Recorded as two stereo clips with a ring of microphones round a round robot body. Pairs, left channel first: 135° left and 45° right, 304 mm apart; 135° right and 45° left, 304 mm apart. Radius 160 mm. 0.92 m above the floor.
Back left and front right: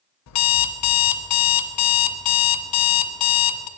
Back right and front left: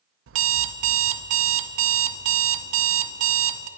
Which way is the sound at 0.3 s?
95° left.